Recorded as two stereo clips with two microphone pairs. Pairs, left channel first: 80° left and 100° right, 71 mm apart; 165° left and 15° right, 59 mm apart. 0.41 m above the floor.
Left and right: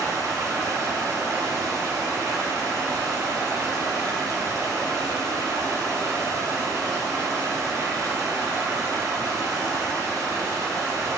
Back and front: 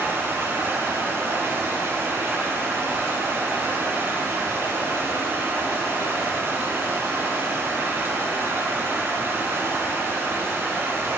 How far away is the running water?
About 8.5 m.